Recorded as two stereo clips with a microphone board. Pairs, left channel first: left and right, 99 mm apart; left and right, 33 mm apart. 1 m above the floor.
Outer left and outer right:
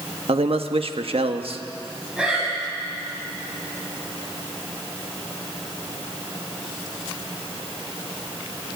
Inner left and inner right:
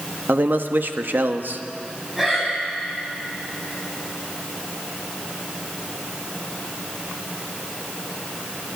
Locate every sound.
0.3 s a man speaking: 70° right (ahead or behind), 1.3 m
2.2 s breathing: 5° right (ahead or behind), 5.5 m